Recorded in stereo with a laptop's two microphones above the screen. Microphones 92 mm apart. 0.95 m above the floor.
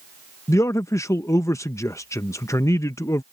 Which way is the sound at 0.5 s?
35° left (ahead or behind).